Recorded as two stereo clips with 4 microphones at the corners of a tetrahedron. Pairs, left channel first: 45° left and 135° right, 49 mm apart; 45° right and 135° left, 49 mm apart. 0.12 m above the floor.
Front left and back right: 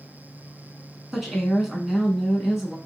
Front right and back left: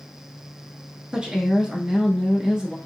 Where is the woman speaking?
145° left, 1.2 m.